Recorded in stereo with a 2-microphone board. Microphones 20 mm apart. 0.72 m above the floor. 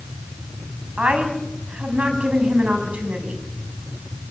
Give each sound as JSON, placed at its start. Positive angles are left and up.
{"t": 1.0, "sound": "a woman speaking", "side_deg": -80, "distance_m": 5.5}